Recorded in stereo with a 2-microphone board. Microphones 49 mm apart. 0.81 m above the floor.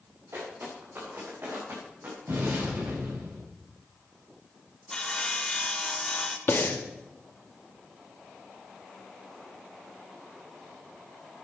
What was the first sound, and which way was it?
Footsteps, 55° right (ahead or behind).